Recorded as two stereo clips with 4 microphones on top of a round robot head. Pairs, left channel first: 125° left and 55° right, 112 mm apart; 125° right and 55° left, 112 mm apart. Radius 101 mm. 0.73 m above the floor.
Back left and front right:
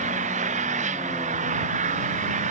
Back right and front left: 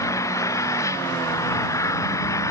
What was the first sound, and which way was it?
An engine running, 60° right.